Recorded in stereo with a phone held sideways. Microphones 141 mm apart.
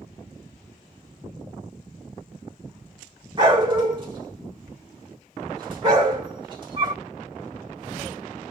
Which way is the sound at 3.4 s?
35° right (ahead or behind).